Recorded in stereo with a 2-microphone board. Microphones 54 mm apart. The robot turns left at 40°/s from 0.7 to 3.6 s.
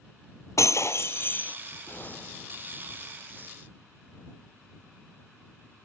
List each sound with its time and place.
0.6 s breaking glass: 65° left; by 1.6 s 30° left
1.9 s an explosion: 45° left; by 2.7 s 10° left